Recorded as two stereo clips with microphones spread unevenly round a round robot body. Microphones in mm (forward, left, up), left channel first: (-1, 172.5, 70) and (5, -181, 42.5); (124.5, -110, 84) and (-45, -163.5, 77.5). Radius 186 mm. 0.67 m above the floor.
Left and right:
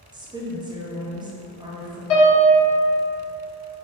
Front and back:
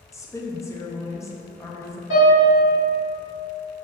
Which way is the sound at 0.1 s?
40° right.